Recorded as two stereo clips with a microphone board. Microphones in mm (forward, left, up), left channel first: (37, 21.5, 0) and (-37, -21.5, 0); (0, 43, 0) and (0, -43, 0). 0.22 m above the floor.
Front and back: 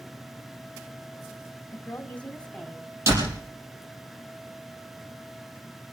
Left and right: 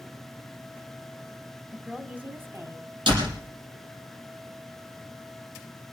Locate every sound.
1.7 s a woman speaking: 10° right, 1.3 m; by 2.9 s 55° right, 1.4 m
3.1 s a door slam: 95° right, 5.5 m